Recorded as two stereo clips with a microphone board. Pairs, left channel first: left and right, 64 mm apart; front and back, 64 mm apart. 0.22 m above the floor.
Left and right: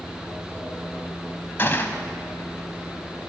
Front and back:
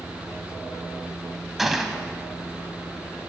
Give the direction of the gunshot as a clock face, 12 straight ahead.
9 o'clock.